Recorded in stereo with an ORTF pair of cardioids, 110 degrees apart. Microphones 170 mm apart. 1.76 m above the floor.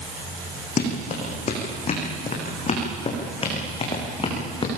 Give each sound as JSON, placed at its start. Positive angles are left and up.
{"t": 0.8, "sound": "running footsteps", "azimuth_deg": 50, "distance_m": 6.0}